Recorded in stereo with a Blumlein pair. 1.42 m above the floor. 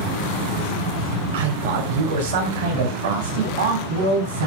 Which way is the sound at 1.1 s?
70° right.